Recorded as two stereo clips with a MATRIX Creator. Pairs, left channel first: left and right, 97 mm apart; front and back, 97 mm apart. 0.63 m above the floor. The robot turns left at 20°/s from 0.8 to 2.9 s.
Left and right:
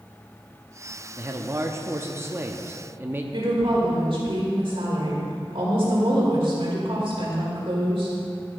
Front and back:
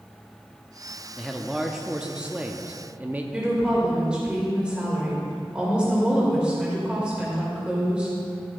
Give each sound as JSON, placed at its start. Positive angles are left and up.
{"t": 1.2, "sound": "a man speaking", "azimuth_deg": -90, "distance_m": 0.7}
{"t": 3.3, "sound": "a woman speaking", "azimuth_deg": -100, "distance_m": 2.5}